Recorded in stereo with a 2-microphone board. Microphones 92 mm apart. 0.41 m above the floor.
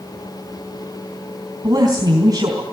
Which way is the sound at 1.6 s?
45° right (ahead or behind).